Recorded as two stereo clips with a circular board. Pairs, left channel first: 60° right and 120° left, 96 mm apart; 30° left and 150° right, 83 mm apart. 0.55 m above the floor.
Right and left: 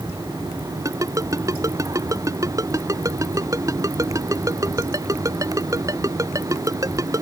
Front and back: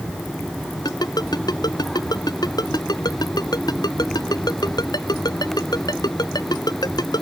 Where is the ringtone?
65° left.